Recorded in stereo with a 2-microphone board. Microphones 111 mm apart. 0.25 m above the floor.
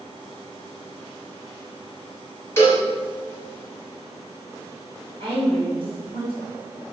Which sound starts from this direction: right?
A woman speaking, at 5.2 s.